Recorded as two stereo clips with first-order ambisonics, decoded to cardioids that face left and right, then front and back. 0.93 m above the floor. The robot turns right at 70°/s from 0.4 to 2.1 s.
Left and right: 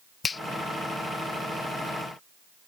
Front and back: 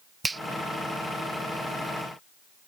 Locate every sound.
0.2 s a finger snap: 125° left